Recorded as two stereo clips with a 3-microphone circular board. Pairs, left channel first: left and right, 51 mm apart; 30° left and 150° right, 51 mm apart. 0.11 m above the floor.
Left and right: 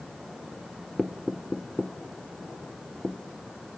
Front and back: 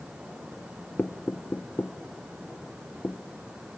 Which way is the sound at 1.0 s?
5° right.